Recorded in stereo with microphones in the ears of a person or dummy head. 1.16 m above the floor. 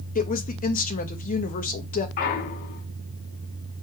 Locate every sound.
0.1 s a woman speaking: 40° left (ahead or behind), 1.1 m
2.2 s a clunk: 50° left (ahead or behind), 1.6 m